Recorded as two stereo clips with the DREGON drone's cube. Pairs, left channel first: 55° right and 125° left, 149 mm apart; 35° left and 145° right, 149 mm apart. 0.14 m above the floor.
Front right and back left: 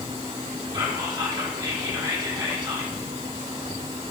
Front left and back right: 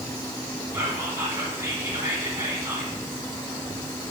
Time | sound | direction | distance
0.7 | whispering | 155° left | 1.5 m